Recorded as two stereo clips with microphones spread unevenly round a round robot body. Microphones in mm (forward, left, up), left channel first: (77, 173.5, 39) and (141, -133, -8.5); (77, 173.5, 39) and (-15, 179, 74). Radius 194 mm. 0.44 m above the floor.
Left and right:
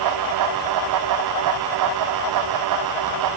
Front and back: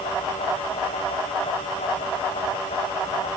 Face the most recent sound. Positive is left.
No sound to turn to.